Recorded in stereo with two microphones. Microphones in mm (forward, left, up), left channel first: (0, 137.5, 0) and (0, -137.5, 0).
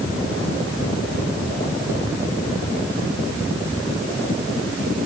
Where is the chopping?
No chopping in this recording.